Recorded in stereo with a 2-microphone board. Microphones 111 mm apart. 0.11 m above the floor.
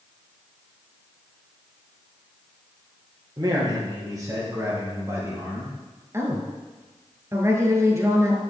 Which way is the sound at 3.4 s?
35° right (ahead or behind).